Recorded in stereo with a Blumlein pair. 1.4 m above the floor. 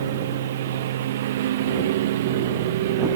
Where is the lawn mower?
60° right; by 3.2 s 55° right.